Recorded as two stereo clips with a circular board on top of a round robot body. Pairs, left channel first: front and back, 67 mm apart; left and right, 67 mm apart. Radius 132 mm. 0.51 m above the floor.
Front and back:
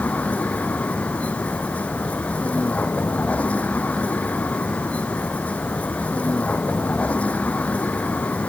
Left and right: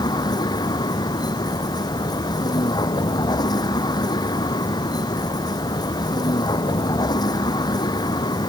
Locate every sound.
0.0 s a vehicle: 70° left